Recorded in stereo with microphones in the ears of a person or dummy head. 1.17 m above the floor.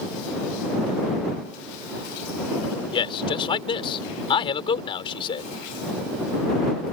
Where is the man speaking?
30° left (ahead or behind).